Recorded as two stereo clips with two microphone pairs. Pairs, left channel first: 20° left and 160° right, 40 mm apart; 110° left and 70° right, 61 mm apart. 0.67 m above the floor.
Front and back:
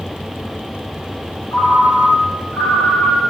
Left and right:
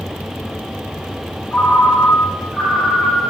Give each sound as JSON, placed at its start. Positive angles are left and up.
{"t": 1.5, "sound": "a ringtone", "azimuth_deg": 25, "distance_m": 2.5}